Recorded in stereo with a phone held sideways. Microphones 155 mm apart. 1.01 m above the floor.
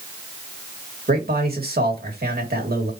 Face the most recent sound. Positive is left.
turn(degrees=-80)